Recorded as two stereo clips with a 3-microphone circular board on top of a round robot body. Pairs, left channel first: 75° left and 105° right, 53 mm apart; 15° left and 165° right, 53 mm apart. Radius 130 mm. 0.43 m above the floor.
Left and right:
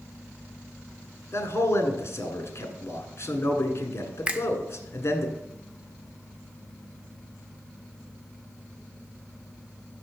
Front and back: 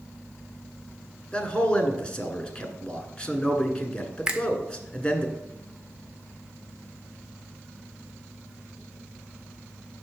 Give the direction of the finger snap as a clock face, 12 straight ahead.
4 o'clock.